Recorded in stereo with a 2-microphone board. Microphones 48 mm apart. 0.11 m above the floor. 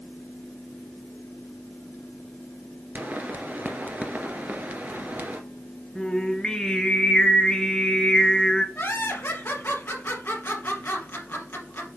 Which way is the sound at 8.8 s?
50° left (ahead or behind).